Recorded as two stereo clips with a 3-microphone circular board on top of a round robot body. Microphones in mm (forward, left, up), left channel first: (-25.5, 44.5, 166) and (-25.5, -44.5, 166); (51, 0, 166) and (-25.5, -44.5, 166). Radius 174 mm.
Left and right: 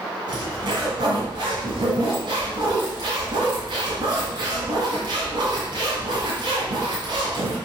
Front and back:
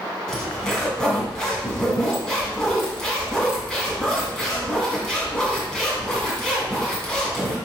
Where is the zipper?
55° right, 1.9 m.